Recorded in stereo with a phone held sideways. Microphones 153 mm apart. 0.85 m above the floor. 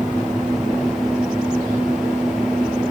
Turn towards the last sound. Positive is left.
turn(degrees=-5)  # may be behind; listen again after turning